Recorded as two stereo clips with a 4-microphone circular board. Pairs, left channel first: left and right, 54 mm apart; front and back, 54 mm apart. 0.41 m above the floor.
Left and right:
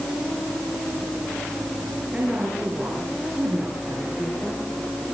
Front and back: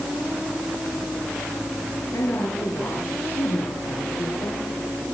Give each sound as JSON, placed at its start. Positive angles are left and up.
{"t": 2.1, "sound": "a woman speaking", "azimuth_deg": -20, "distance_m": 8.0}